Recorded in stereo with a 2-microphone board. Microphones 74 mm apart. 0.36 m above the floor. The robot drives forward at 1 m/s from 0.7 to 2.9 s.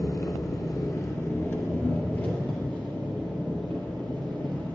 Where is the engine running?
55° left (ahead or behind), 1.1 m; by 4.8 s 15° left (ahead or behind), 3 m.